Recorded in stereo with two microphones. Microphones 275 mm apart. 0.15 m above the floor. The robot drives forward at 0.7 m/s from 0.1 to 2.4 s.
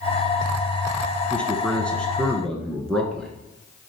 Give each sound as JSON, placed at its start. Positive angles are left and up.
{"t": 1.3, "sound": "a man speaking", "side_deg": 5, "distance_m": 1.1}